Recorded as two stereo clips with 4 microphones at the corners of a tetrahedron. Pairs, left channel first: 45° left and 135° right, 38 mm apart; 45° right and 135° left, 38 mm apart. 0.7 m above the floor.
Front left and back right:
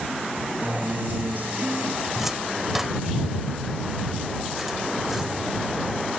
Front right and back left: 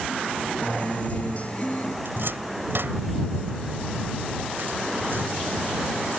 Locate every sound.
0.6 s a guitar: 95° right
2.0 s a cupboard door: 145° left